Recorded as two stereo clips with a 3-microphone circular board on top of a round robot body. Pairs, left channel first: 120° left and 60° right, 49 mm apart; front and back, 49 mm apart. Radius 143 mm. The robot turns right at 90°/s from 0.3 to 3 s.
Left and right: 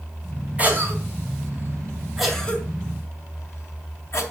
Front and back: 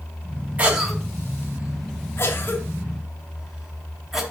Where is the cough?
120° right, 2.5 m; by 4.2 s 95° left, 2.5 m.